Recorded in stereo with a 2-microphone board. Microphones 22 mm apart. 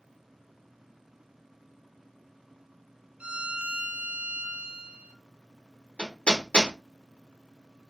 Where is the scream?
No scream in this recording.